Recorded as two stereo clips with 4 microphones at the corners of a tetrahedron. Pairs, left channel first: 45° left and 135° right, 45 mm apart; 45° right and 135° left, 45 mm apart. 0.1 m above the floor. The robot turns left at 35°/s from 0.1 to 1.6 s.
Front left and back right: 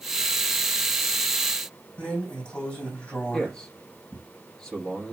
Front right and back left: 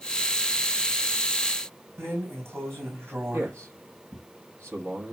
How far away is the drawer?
About 3 m.